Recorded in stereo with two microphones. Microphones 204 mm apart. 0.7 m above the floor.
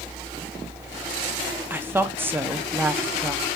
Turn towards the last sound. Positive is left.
turn(degrees=-10)  # may be behind; listen again after turning